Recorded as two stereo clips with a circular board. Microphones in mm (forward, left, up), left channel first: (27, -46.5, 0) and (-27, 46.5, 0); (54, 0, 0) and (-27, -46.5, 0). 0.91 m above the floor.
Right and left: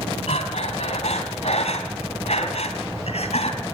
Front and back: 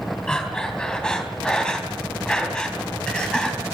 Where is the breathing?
50° right, 3 m.